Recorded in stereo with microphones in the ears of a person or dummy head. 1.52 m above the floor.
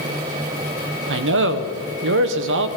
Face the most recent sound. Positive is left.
turn(degrees=-70)  # may be behind; listen again after turning